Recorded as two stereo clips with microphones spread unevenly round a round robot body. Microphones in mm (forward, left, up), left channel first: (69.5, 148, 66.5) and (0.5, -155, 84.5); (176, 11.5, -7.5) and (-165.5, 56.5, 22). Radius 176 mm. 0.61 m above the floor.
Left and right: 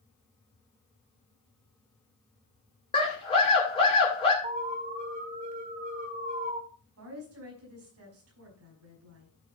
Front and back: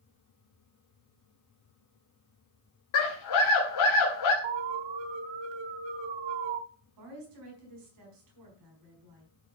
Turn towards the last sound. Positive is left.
turn(degrees=-150)